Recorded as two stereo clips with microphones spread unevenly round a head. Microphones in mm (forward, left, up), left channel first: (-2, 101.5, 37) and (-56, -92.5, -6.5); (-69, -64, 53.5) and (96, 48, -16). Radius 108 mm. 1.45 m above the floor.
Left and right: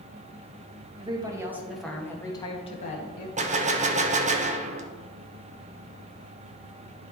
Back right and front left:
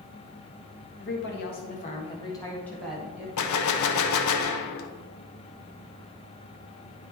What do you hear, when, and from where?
1.0 s a woman speaking: 175° right, 1.7 m; by 3.3 s 120° left, 1.8 m
3.4 s a gunshot: 155° right, 0.9 m